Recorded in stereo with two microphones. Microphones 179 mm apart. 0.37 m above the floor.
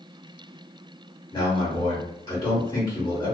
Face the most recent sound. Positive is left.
turn(degrees=20)  # may be behind; listen again after turning